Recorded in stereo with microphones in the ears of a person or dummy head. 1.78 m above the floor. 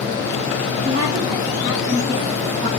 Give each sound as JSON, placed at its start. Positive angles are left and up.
{"t": 0.8, "sound": "a woman speaking", "side_deg": -55, "distance_m": 2.0}